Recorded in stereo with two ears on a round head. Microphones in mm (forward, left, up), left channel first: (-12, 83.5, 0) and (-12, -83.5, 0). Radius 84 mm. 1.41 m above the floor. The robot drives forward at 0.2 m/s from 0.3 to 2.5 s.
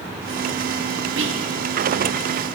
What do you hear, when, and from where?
1.2 s whispering: 75° right (ahead or behind), 0.8 m